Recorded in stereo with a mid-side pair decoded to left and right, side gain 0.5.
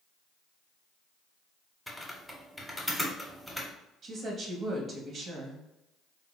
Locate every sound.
1.9 s typing on a keyboard: straight ahead, 0.9 m
4.0 s a woman speaking: 50° right, 1.0 m